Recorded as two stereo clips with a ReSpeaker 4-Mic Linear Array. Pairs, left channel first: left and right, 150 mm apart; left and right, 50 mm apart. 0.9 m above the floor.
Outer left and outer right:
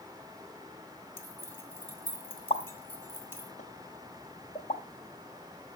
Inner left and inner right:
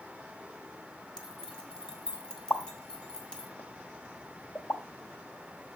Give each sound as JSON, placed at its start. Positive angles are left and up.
{"t": 1.2, "sound": "keys jangling", "side_deg": 15, "distance_m": 1.6}
{"t": 2.5, "sound": "a pop", "side_deg": 50, "distance_m": 0.8}